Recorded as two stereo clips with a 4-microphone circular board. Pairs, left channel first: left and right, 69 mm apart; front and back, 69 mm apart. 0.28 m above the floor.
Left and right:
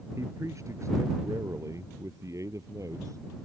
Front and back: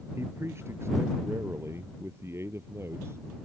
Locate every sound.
0.2 s a man speaking: 130° right